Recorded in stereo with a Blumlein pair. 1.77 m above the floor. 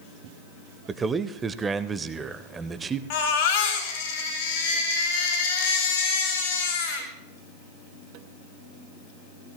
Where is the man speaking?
15° right, 0.9 m.